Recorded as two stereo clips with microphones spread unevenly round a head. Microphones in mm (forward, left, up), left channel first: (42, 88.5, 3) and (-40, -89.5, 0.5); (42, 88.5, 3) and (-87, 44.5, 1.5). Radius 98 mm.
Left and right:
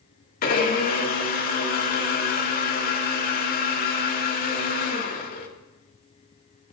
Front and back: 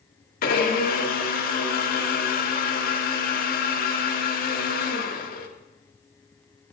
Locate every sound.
0.4 s a blender: 20° left, 1.7 m